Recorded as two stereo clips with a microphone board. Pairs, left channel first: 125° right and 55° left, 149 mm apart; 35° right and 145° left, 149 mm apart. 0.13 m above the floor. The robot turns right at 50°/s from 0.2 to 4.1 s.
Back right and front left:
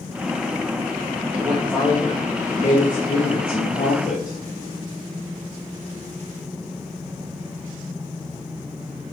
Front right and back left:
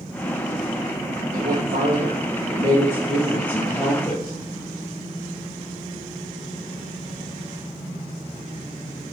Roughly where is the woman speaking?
Behind left.